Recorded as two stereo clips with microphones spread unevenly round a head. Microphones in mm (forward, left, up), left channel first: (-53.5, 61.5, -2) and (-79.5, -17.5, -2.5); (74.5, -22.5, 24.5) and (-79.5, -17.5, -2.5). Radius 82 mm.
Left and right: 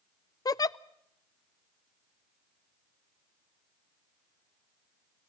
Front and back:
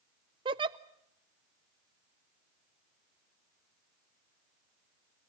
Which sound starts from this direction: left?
A giggle, at 0.5 s.